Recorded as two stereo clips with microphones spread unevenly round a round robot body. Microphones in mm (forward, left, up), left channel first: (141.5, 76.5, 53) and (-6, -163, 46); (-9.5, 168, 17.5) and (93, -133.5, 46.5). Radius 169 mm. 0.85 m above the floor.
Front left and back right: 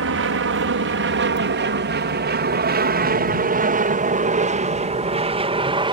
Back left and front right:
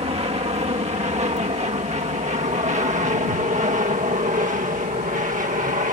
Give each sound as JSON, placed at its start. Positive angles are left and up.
{"t": 0.0, "sound": "an aircraft", "azimuth_deg": -140}